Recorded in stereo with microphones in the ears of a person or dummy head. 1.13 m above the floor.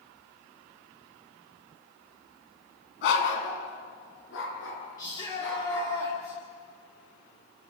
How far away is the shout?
About 3.5 m.